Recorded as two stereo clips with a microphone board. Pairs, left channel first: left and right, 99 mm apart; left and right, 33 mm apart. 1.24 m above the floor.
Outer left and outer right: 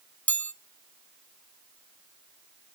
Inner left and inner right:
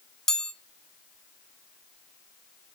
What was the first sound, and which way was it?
A chime, 15° left (ahead or behind).